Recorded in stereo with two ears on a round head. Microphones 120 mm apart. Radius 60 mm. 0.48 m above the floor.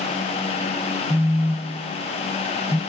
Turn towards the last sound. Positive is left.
turn(degrees=15)  # may be behind; listen again after turning